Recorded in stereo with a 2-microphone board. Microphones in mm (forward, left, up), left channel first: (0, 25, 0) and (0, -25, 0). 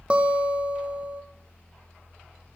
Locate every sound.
0.1 s a guitar: 25° right (ahead or behind), 1.6 m